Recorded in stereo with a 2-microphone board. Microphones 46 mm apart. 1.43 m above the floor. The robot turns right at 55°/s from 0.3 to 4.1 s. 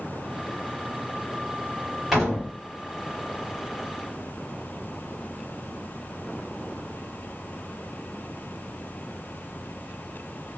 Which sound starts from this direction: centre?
A door slam, at 2.1 s.